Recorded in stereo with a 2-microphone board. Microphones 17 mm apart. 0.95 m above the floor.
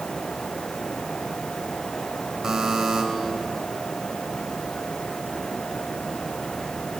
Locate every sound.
2.4 s a buzzer: 35° right (ahead or behind), 3.5 m